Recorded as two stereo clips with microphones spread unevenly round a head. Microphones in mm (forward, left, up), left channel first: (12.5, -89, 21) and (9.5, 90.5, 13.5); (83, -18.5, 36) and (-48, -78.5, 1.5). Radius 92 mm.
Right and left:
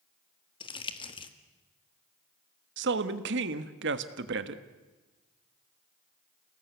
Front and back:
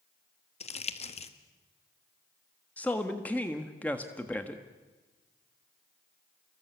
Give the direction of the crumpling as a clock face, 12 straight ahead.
1 o'clock.